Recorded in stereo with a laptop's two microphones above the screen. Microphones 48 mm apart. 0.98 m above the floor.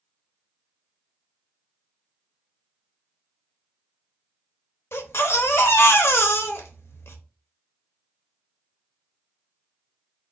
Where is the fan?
I don't hear a fan.